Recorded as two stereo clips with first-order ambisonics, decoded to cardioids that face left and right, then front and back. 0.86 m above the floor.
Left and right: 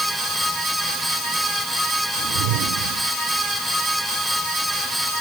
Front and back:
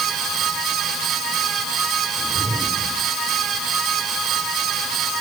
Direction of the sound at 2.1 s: 100° right.